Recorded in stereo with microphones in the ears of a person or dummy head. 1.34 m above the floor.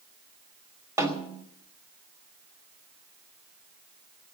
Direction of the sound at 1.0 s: 15° right (ahead or behind).